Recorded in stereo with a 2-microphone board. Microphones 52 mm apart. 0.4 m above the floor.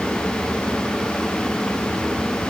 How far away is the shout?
No shout in this recording.